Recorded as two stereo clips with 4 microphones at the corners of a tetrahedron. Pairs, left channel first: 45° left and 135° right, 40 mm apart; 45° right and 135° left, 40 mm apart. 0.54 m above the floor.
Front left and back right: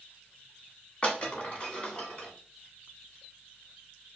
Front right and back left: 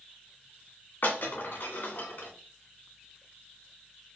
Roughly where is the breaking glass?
Ahead.